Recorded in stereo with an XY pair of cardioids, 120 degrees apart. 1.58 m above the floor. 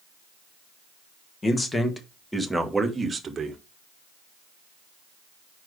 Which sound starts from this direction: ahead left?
A man speaking, at 1.4 s.